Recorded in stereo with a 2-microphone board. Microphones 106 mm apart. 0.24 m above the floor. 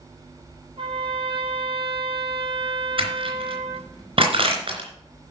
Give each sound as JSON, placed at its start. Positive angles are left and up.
{"t": 0.8, "sound": "a trumpet", "side_deg": -60, "distance_m": 2.0}
{"t": 3.0, "sound": "crushing", "side_deg": -60, "distance_m": 3.5}